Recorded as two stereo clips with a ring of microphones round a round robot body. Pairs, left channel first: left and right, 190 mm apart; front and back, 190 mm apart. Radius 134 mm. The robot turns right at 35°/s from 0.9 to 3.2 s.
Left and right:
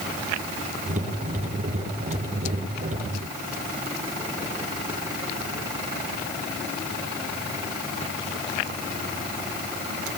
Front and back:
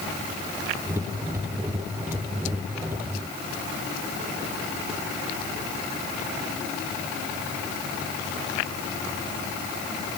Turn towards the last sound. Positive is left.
No sound to turn to.